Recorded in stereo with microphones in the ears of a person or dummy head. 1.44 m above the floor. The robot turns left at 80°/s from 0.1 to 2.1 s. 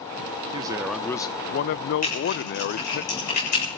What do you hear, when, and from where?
0.5 s a man speaking: 150° right, 0.6 m; by 3.0 s 80° left, 0.6 m
2.0 s typing on a keyboard: 50° left (ahead or behind), 7 m; by 3.8 s 55° left (ahead or behind), 7 m